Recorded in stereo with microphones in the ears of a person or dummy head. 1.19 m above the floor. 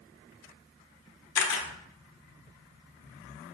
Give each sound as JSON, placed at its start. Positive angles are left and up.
{"t": 1.4, "sound": "a camera shutter", "side_deg": 65, "distance_m": 1.1}